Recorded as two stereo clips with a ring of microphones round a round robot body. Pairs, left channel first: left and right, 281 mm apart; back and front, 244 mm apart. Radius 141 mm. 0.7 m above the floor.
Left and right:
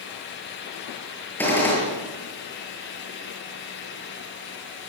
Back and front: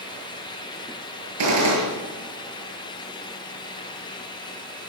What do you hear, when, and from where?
1.4 s a gunshot: 5° left, 8.5 m